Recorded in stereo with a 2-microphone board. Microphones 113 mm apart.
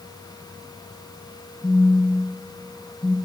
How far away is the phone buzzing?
About 0.7 m.